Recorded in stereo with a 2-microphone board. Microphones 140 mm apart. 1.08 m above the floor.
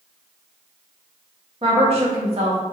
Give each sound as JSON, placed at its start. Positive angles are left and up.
{"t": 1.6, "sound": "a woman speaking", "side_deg": -45, "distance_m": 1.3}